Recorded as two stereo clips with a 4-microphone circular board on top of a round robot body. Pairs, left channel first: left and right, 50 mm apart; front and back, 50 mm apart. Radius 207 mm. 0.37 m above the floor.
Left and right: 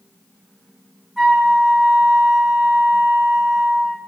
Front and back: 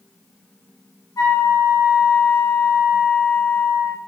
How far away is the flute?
About 0.7 m.